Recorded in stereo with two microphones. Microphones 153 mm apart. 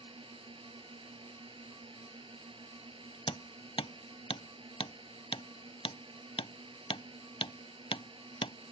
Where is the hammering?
40° left (ahead or behind).